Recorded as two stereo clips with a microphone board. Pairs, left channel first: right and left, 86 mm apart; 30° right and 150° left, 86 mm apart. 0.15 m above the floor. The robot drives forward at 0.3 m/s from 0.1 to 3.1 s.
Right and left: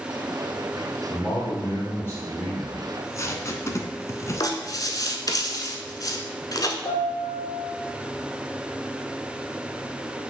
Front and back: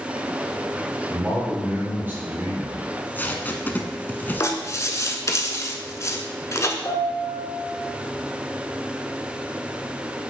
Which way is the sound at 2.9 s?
75° right.